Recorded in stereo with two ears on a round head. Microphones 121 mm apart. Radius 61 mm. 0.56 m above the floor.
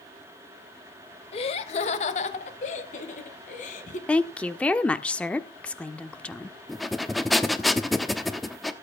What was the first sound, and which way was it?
Laughter, 45° left (ahead or behind).